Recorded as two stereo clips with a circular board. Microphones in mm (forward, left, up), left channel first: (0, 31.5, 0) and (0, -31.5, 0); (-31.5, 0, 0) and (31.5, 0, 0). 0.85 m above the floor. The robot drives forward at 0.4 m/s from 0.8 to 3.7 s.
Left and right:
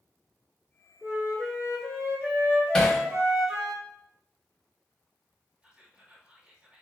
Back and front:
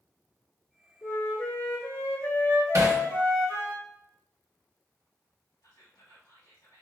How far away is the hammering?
About 0.9 m.